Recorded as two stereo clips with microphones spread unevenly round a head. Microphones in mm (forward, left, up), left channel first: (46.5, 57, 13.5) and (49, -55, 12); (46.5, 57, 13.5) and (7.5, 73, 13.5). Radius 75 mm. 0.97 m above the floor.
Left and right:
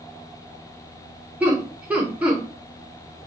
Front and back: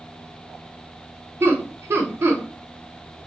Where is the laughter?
170° right, 0.7 m.